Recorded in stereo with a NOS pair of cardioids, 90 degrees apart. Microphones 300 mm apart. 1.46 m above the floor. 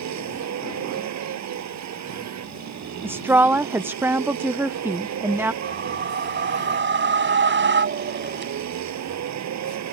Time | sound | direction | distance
0.0 | a vehicle | 65° right | ?
3.0 | a woman speaking | 5° right | ?
5.6 | a whoosh | 40° right | ?